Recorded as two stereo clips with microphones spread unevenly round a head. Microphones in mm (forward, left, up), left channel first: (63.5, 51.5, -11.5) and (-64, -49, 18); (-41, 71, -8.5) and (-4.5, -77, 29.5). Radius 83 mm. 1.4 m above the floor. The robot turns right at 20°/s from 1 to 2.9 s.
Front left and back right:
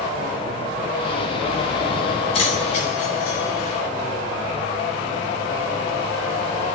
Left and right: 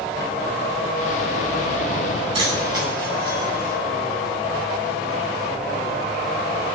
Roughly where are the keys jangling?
Ahead.